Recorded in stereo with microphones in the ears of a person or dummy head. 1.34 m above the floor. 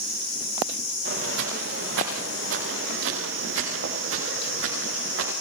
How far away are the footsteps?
About 9.5 m.